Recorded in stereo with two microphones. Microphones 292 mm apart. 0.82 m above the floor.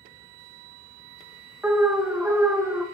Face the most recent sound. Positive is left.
turn(degrees=-5)  # may be behind; listen again after turning